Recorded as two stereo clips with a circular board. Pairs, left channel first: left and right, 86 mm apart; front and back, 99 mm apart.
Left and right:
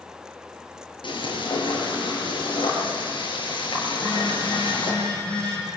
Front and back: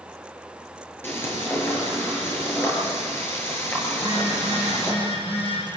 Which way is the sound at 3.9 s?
15° left.